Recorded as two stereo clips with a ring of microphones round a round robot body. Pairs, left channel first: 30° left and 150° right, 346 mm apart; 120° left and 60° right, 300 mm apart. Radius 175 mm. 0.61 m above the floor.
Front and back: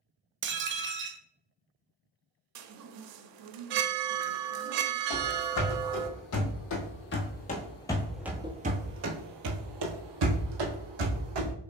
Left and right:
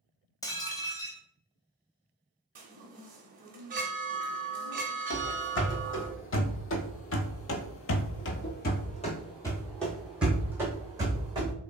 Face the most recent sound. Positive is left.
turn(degrees=-135)